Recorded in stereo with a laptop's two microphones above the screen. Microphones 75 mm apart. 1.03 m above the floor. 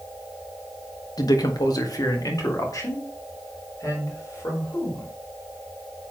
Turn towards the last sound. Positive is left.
turn(degrees=45)  # may be behind; listen again after turning